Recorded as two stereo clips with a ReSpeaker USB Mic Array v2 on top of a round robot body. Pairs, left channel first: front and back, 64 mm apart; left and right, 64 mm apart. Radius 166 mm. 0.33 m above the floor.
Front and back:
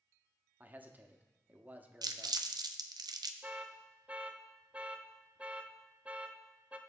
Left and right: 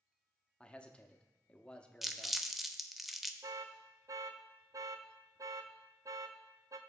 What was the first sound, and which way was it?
A man speaking, 150° left.